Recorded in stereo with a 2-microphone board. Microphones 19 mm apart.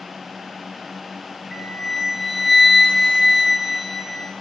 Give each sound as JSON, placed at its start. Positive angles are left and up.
{"t": 1.5, "sound": "a flute", "side_deg": -20, "distance_m": 1.6}